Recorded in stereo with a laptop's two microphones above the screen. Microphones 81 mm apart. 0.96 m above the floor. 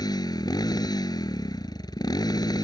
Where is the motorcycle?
55° left (ahead or behind).